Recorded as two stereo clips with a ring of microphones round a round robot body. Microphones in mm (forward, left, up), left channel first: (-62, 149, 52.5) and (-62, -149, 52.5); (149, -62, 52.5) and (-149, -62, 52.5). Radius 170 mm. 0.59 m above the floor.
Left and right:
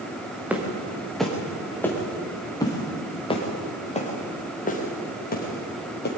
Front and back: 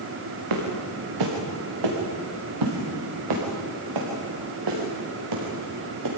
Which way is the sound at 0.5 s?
175° right.